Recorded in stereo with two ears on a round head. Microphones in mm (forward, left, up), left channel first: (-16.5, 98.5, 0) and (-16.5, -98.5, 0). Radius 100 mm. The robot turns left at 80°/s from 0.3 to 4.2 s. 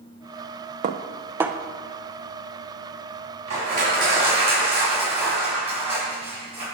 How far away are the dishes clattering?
About 0.6 m.